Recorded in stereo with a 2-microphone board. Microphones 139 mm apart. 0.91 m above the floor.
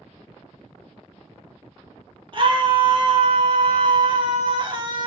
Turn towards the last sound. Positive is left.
turn(degrees=-40)  # may be behind; listen again after turning